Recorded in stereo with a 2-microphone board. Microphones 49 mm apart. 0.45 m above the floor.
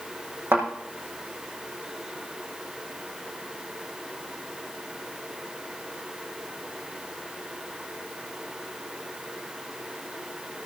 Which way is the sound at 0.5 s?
55° right (ahead or behind).